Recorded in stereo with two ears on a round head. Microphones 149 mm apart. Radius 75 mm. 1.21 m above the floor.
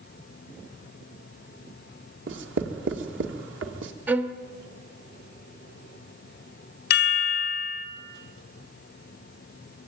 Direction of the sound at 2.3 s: 80° right.